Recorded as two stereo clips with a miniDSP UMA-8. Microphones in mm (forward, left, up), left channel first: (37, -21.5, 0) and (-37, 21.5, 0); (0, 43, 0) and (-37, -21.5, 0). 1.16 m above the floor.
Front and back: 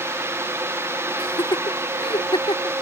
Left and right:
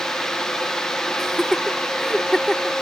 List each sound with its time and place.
1.2 s laughter: 25° right